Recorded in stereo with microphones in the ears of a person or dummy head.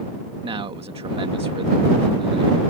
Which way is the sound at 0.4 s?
30° right (ahead or behind).